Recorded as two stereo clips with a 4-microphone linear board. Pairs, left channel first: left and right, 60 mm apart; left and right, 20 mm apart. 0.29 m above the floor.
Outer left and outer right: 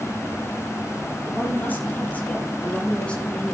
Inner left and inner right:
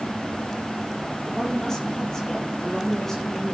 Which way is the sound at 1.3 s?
30° left (ahead or behind).